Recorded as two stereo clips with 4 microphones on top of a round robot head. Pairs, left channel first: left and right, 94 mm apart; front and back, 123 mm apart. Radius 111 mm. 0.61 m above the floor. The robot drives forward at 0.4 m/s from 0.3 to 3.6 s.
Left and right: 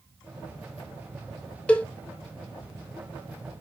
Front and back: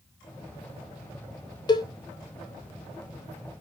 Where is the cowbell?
20° left, 0.9 m; by 1.9 s 25° left, 0.9 m.